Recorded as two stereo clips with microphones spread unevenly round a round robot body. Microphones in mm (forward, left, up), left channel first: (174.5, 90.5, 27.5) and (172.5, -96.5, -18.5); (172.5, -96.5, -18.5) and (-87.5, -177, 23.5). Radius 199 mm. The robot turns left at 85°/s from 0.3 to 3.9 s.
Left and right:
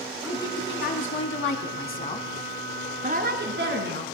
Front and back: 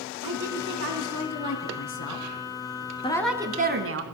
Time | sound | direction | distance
0.2 | a woman speaking | 175° right | 4.5 m